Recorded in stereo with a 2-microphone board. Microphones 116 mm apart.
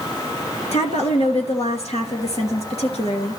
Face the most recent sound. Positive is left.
turn(degrees=65)  # may be behind; listen again after turning